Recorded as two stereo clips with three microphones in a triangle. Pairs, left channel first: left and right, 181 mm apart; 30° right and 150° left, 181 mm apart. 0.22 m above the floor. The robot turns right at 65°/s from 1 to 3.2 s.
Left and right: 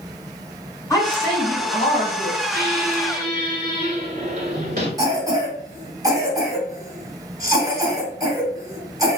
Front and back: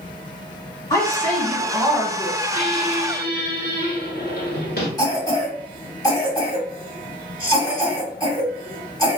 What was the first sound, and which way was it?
A woman speaking, 30° left.